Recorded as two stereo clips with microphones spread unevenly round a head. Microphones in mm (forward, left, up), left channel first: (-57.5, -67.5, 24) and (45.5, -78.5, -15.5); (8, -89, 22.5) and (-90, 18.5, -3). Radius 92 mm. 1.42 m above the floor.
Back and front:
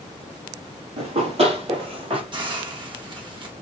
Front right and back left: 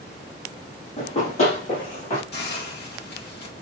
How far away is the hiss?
About 1.7 m.